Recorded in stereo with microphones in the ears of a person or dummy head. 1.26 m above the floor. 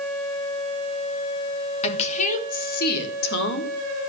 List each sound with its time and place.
1.8 s a woman speaking: 35° left (ahead or behind), 2.5 m; by 4.1 s 75° left (ahead or behind), 3.5 m